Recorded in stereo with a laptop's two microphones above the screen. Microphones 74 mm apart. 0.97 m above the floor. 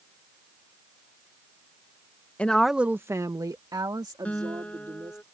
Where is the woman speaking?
15° left (ahead or behind); by 5.2 s 70° right (ahead or behind).